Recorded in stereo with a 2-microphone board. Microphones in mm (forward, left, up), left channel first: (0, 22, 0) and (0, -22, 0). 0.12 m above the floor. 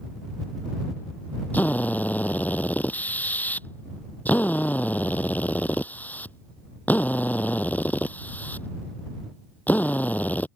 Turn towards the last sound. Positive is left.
turn(degrees=40)  # may be behind; listen again after turning